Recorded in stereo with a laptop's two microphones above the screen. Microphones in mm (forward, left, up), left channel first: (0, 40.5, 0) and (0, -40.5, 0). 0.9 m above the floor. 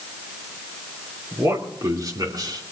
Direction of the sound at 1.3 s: 35° right (ahead or behind).